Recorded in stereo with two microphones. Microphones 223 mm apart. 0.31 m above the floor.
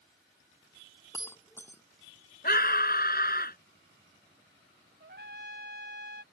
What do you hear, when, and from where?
1.1 s breaking glass: 10° left (ahead or behind)
2.4 s a scream: 45° left (ahead or behind)
5.0 s a trumpet: 55° right (ahead or behind)